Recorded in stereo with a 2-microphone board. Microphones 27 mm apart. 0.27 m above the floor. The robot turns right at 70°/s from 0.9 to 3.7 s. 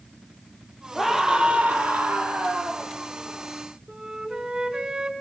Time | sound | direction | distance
0.9 | a scream | 175° right | 7 m
3.9 | a flute | 30° right (ahead or behind) | 3 m